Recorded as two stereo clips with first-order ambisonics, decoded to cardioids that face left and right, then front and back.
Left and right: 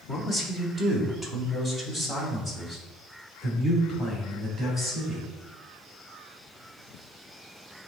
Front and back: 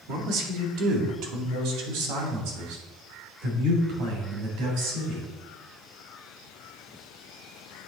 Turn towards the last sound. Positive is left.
turn(degrees=170)